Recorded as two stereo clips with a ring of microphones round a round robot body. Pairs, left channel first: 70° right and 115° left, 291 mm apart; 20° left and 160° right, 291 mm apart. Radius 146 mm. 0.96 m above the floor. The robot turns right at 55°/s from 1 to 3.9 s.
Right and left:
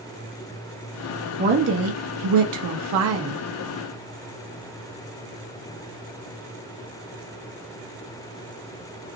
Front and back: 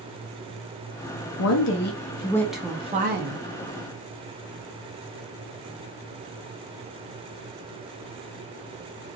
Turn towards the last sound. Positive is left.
turn(degrees=-170)